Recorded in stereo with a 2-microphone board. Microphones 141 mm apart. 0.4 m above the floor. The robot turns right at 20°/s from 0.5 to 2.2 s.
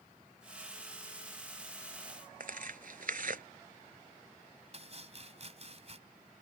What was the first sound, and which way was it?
Tearing paper, 70° right (ahead or behind).